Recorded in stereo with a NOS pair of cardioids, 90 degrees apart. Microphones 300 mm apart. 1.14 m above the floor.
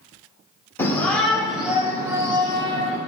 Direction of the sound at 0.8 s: 10° left.